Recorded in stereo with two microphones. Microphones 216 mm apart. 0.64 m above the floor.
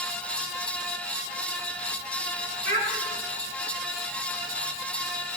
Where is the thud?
No thud in this recording.